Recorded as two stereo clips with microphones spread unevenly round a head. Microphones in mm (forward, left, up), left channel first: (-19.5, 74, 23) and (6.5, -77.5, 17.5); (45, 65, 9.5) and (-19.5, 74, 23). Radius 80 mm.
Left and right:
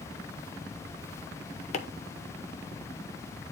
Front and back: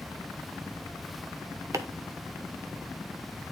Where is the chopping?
145° left, 0.9 m.